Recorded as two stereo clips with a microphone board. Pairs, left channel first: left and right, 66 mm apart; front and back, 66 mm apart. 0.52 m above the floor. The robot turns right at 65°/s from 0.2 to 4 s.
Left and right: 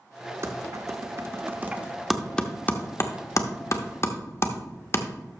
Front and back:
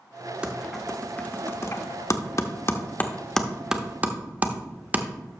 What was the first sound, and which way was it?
Typing on a keyboard, 110° right.